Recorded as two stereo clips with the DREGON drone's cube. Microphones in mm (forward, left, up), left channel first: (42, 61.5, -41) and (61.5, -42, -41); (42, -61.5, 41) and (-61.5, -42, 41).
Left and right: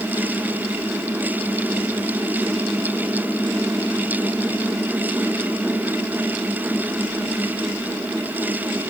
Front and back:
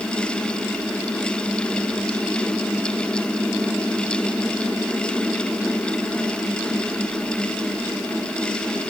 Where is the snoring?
No snoring in this recording.